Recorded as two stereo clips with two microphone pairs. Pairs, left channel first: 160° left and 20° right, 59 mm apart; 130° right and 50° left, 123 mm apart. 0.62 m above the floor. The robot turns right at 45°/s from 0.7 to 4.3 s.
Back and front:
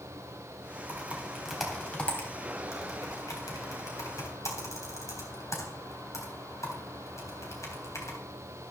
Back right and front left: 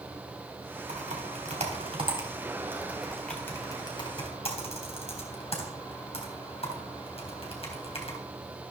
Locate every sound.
0.9 s typing on a keyboard: 40° left, 3.5 m; by 8.2 s 165° right, 3.5 m